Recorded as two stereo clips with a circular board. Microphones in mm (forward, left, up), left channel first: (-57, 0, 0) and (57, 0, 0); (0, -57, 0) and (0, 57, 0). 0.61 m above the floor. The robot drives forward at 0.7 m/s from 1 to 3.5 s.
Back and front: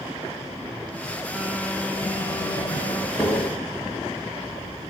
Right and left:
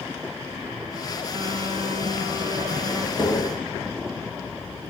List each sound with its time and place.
1.3 s a phone buzzing: 90° left, 1.2 m; by 3.1 s 145° left, 1.7 m
3.2 s tapping: 130° right, 1.8 m; by 3.5 s 135° right, 1.9 m